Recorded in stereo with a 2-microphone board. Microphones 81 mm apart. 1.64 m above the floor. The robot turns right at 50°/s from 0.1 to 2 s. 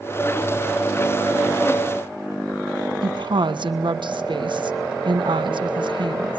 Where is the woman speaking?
80° right, 1.3 m.